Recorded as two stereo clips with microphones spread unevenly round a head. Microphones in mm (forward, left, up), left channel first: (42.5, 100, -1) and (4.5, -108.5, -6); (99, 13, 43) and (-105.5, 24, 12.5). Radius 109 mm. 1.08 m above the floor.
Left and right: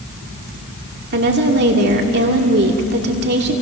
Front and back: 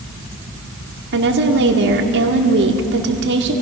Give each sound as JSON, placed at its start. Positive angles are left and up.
{"t": 1.1, "sound": "a woman speaking", "azimuth_deg": -145, "distance_m": 2.5}